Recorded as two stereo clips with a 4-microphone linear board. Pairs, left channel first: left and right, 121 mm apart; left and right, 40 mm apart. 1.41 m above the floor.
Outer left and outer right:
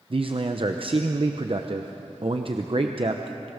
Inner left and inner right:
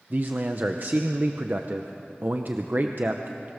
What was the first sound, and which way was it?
A man speaking, 50° right (ahead or behind).